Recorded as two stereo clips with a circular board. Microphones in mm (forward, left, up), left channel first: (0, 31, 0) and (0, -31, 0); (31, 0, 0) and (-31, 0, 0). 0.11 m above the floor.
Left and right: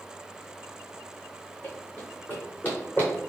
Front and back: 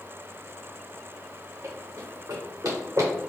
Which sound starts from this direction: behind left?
Running footsteps, at 1.6 s.